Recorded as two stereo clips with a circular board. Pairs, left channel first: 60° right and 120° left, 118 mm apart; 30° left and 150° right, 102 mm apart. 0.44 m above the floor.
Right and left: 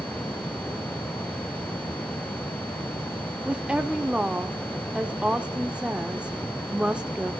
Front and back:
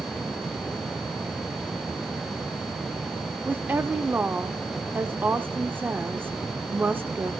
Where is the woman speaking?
175° right, 0.8 m.